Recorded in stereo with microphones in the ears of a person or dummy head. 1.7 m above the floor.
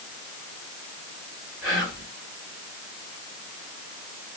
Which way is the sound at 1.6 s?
20° right (ahead or behind).